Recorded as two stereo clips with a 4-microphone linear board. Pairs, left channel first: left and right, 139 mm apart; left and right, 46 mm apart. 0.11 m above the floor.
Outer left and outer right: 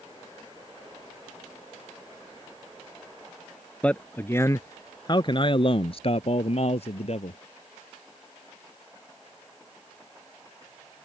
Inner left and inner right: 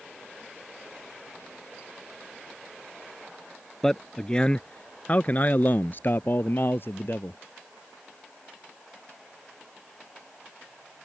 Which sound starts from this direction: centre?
A man speaking, at 3.8 s.